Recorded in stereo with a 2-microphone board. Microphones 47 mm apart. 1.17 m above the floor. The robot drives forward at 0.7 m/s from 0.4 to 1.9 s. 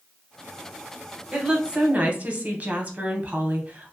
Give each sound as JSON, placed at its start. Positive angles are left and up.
{"t": 1.3, "sound": "a woman speaking", "side_deg": -20, "distance_m": 1.0}